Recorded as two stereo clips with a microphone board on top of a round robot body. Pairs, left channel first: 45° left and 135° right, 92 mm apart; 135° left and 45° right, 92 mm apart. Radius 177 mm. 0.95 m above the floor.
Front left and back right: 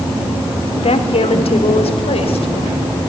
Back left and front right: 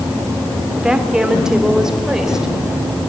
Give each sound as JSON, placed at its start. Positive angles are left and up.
{"t": 0.8, "sound": "a woman speaking", "azimuth_deg": 35, "distance_m": 3.5}